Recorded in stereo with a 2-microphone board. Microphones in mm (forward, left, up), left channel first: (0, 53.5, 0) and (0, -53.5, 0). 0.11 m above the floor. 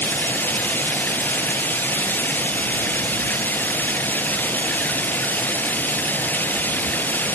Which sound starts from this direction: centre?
Running water, at 0.0 s.